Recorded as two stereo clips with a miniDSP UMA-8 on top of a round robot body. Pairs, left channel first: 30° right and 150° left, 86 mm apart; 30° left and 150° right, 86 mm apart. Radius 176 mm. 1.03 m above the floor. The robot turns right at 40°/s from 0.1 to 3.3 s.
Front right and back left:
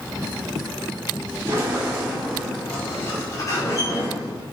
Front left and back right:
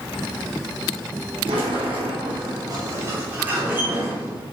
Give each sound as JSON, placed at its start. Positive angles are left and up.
{"t": 1.5, "sound": "a sliding door", "azimuth_deg": -155, "distance_m": 3.0}